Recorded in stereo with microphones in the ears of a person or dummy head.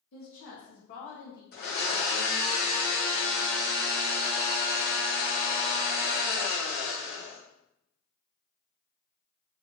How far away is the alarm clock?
I don't hear an alarm clock.